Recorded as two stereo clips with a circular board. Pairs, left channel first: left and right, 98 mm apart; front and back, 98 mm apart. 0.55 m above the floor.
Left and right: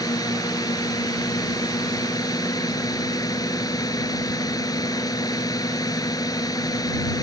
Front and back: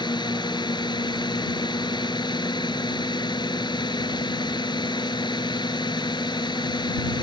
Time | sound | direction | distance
0.0 | a drone | 40° left | ?